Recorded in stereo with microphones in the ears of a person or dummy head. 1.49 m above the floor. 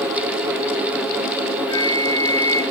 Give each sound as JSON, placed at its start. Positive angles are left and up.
{"t": 1.7, "sound": "a flute", "side_deg": 20, "distance_m": 1.3}